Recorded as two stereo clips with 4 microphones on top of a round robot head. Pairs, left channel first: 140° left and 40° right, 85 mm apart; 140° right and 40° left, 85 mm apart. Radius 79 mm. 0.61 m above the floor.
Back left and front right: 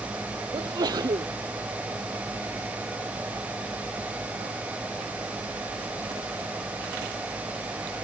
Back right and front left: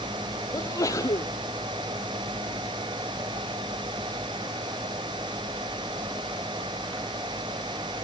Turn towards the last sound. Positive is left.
turn(degrees=-85)